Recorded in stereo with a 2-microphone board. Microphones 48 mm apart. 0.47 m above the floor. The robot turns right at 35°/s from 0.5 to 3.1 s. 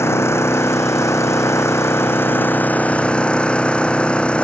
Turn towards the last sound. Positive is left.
turn(degrees=155)